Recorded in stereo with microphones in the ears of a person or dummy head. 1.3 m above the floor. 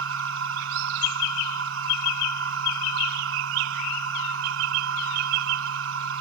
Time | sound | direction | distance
0.0 | a machine running | 70° right (ahead or behind) | ?